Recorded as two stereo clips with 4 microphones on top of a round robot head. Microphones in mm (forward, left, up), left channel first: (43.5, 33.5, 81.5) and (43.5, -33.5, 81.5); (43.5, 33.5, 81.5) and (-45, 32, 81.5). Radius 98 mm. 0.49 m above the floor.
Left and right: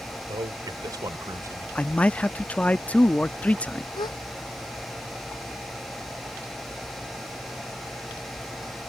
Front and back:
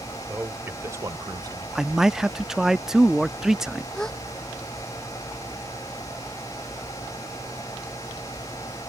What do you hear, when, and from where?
0.3 s a man speaking: 105° right; by 1.6 s 135° right
1.8 s a man speaking: 105° left
4.0 s a gasp: 85° left